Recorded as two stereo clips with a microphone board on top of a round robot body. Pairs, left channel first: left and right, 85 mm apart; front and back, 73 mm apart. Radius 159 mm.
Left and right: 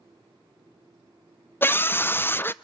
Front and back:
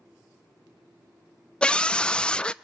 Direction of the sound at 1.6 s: 60° left.